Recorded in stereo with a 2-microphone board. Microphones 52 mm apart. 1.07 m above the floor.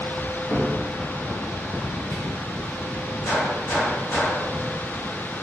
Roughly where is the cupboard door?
Left.